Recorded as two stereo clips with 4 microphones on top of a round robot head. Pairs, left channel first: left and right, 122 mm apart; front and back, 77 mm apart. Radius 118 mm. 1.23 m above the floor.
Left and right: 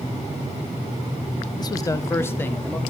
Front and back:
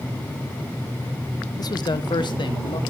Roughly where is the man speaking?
Ahead left.